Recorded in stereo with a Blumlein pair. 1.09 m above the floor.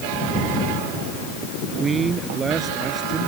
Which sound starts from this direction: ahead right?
A man speaking, at 1.6 s.